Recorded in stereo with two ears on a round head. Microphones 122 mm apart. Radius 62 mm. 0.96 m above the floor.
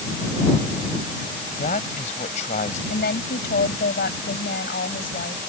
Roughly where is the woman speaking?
Left.